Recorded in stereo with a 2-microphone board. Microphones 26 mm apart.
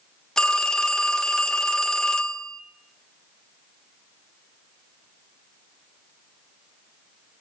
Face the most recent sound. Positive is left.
turn(degrees=25)  # may be behind; listen again after turning